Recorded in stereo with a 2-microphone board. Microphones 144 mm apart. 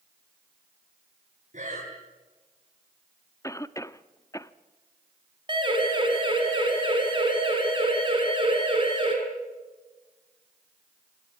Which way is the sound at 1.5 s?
55° right (ahead or behind).